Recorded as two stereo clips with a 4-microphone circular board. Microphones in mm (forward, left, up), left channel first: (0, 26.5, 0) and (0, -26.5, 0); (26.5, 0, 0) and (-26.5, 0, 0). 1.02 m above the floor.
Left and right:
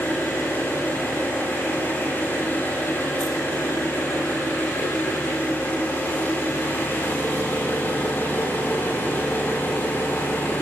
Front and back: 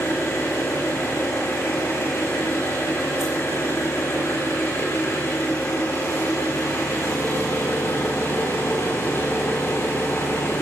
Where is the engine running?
40° left, 6.5 m.